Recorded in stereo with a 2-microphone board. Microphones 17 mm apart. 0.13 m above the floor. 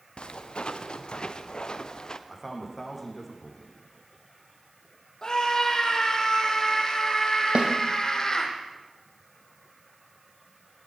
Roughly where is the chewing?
No chewing in this recording.